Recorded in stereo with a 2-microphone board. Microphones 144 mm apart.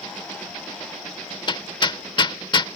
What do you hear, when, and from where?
1.5 s hammering: 35° left (ahead or behind)